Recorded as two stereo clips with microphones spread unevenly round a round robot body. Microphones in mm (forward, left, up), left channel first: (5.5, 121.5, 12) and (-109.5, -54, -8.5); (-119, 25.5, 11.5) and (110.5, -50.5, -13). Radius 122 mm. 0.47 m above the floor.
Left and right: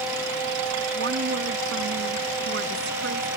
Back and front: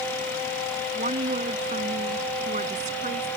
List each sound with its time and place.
0.9 s a woman speaking: 80° right